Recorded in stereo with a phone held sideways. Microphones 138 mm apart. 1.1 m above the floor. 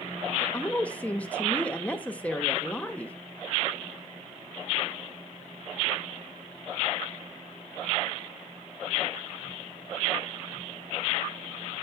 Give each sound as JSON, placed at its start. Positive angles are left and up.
{"t": 0.4, "sound": "a woman speaking", "side_deg": 10, "distance_m": 0.8}